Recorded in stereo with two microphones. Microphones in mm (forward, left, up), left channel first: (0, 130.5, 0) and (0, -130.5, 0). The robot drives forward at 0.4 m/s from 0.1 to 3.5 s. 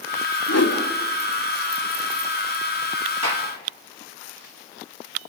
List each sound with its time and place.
0.5 s a whoosh: 70° left (ahead or behind), 2.5 m
3.2 s a gunshot: 90° right, 3.5 m; by 3.5 s 85° right, 3.5 m